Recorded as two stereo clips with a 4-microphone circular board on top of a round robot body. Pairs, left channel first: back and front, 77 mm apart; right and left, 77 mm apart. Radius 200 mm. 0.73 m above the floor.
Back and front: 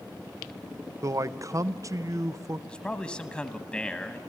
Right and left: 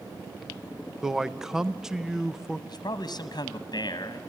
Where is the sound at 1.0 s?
10° left, 0.8 m.